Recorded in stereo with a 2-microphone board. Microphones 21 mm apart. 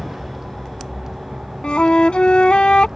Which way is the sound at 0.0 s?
20° right (ahead or behind).